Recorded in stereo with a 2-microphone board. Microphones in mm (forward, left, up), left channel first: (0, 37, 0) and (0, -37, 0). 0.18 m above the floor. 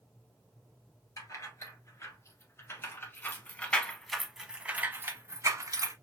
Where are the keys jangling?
45° left (ahead or behind), 1.9 m; by 5.9 s 50° right (ahead or behind), 1.0 m.